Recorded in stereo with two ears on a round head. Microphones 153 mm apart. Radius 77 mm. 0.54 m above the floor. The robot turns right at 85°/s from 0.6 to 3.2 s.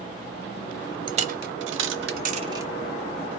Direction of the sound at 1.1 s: 30° right (ahead or behind).